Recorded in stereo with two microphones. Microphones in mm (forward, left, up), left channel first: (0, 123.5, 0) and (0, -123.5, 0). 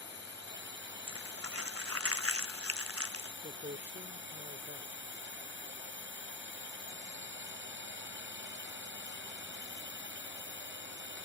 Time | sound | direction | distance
0.0 | a drone | 55° right (ahead or behind) | ?
1.1 | crumpling | 70° right (ahead or behind) | ?
3.4 | a man speaking | 45° right (ahead or behind) | ?